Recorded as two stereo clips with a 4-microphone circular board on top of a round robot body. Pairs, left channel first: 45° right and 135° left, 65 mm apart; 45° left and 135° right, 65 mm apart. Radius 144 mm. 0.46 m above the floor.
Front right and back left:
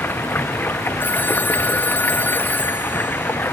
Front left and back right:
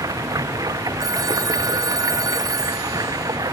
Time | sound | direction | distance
0.0 | running water | 105° right | ?
1.0 | a phone ringing | 110° right | ?